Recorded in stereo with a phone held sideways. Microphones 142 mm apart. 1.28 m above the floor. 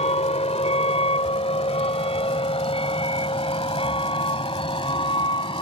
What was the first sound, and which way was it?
A vehicle, 50° left (ahead or behind).